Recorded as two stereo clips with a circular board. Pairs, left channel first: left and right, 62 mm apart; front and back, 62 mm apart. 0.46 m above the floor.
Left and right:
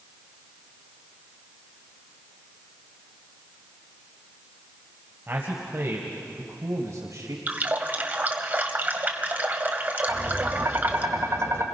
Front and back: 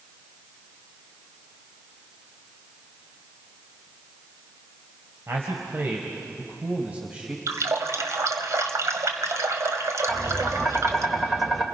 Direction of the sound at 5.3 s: 140° right.